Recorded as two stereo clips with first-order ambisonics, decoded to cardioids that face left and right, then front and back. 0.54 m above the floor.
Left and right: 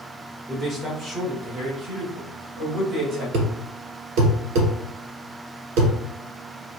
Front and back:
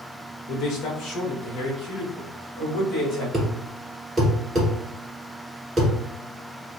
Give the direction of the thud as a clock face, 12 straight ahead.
3 o'clock.